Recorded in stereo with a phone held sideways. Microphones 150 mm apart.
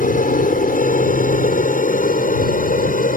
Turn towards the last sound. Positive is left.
turn(degrees=70)  # may be behind; listen again after turning